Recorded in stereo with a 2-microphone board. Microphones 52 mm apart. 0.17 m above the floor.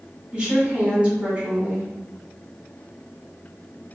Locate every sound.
0.3 s a woman speaking: 20° right (ahead or behind), 1.4 m